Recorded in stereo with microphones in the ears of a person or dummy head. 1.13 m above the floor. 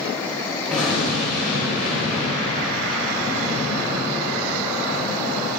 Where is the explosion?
5° left (ahead or behind), 2.5 m.